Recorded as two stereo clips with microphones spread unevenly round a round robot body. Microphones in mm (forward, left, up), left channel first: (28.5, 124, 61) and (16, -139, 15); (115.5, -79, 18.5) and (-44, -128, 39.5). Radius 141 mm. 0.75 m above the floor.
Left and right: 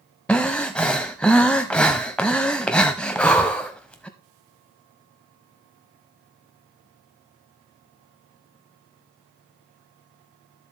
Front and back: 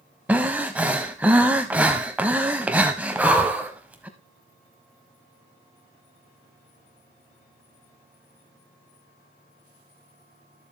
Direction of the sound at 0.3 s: 145° left.